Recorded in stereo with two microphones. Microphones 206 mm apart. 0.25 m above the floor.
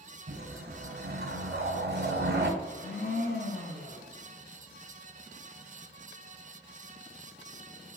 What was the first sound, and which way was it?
A whoosh, 55° right (ahead or behind).